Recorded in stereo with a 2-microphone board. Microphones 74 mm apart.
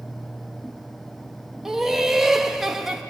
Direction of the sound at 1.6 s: 5° right (ahead or behind).